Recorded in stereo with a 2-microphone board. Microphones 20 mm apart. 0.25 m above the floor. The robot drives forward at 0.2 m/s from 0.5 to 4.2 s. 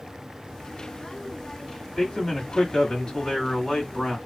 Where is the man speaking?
35° left (ahead or behind), 1.7 m; by 4.2 s 30° left (ahead or behind), 1.9 m.